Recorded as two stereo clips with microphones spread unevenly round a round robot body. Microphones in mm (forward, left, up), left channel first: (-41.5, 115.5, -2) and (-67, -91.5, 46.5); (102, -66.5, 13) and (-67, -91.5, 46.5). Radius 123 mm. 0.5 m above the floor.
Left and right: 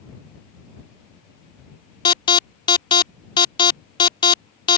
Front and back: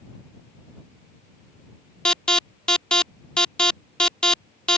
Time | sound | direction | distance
2.0 | an alarm | 70° left | ?